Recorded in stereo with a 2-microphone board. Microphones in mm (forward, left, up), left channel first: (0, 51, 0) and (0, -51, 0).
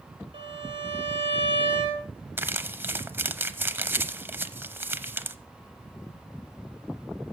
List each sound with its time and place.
0.3 s a violin: 55° right (ahead or behind), 2.5 m
2.4 s crumpling: 20° right (ahead or behind), 0.8 m